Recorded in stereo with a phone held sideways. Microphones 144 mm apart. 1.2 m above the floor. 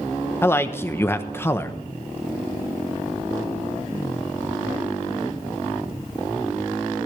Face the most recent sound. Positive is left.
turn(degrees=15)  # may be behind; listen again after turning